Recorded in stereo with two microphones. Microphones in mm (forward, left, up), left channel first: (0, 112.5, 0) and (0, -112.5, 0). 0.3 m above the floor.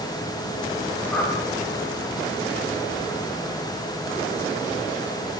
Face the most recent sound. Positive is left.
turn(degrees=5)  # may be behind; listen again after turning